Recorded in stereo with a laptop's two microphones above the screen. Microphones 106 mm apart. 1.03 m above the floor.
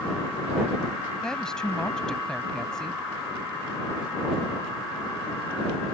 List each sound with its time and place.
1.2 s a woman speaking: 5° left (ahead or behind)